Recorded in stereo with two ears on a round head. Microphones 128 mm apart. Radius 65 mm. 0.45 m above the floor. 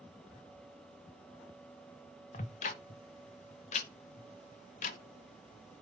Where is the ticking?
50° left (ahead or behind), 0.7 m.